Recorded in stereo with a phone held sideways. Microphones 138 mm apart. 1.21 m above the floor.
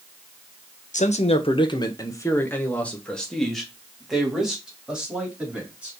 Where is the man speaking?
60° left (ahead or behind), 0.8 m; by 5.9 s 10° right (ahead or behind), 3 m.